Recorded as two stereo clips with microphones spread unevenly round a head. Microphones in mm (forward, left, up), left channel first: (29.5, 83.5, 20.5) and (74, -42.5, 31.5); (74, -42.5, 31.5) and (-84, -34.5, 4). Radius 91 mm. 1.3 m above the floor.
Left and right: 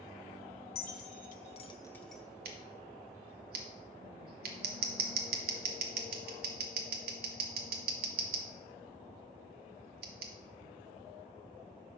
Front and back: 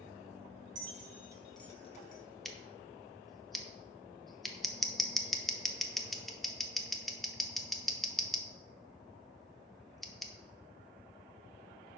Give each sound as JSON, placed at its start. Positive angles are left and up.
{"t": 0.8, "sound": "keys jangling", "azimuth_deg": 125, "distance_m": 1.1}
{"t": 2.5, "sound": "scissors", "azimuth_deg": -90, "distance_m": 0.8}